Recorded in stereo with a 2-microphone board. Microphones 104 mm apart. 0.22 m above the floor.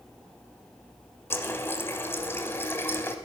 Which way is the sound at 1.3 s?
20° left (ahead or behind).